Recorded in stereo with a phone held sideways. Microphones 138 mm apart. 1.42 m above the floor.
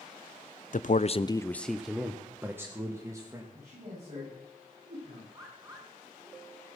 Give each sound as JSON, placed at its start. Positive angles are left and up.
{"t": 0.7, "sound": "a man speaking", "side_deg": 60, "distance_m": 0.7}
{"t": 3.5, "sound": "a man speaking", "side_deg": -55, "distance_m": 9.5}
{"t": 5.3, "sound": "a bird", "side_deg": -25, "distance_m": 3.5}